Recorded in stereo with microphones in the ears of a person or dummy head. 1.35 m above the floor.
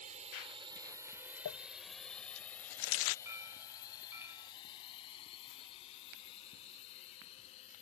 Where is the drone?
40° right (ahead or behind); by 7.8 s 35° left (ahead or behind).